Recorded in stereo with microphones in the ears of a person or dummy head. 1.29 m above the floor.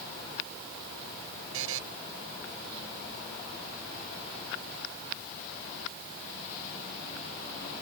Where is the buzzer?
85° right.